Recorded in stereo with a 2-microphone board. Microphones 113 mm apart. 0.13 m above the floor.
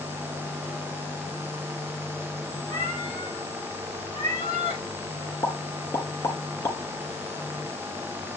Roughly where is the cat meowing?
Left.